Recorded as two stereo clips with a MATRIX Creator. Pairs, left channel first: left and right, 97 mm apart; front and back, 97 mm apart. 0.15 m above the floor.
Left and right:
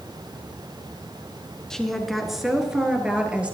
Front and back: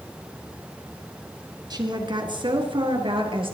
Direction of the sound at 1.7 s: 170° left.